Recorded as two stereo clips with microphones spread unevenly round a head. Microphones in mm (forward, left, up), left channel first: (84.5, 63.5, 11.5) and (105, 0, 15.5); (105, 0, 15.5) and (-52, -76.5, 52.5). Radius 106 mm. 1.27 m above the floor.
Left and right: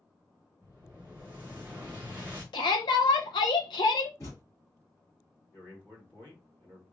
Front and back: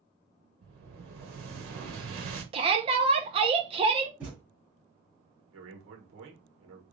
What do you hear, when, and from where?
0.6 s an explosion: 160° right, 1.1 m
2.5 s a shout: 140° left, 0.6 m
4.2 s a thud: 140° left, 1.4 m
5.5 s a man speaking: 175° right, 1.3 m